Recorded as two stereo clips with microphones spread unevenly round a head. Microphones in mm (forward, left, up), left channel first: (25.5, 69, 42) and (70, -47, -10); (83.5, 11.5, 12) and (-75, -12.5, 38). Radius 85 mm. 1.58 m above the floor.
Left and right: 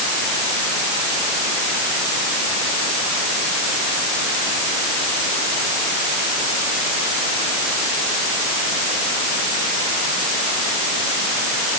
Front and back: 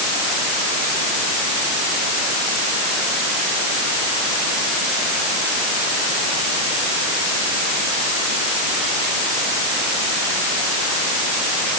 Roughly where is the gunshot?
No gunshot in this recording.